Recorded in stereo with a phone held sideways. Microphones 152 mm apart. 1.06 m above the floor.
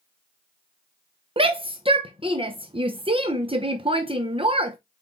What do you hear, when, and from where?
1.4 s a shout: 35° right (ahead or behind), 0.7 m